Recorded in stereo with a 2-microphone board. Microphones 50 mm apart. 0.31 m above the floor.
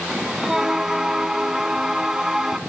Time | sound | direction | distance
0.1 | a bell | 10° right (ahead or behind) | 0.8 m